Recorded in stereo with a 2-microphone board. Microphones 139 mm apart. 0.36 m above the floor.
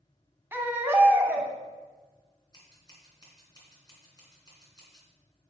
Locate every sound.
0.5 s a baby crying: 15° right (ahead or behind), 0.9 m
2.5 s scissors: 30° left (ahead or behind), 2.5 m